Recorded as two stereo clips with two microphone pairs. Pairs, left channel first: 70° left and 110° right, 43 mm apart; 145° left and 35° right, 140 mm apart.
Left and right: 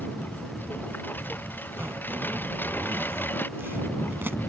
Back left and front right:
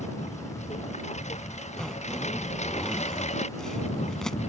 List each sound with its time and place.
0.0 s a lawn mower: 110° left
1.8 s a zipper: 130° right